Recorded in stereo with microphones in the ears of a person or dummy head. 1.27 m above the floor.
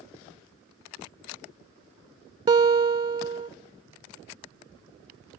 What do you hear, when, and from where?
2.5 s a guitar: 20° right (ahead or behind), 0.6 m